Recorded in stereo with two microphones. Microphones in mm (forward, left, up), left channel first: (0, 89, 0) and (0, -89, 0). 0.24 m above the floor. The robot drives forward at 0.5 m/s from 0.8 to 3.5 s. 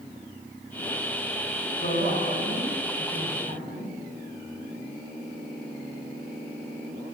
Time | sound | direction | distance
1.8 | a woman speaking | 50° left (ahead or behind) | 2.5 m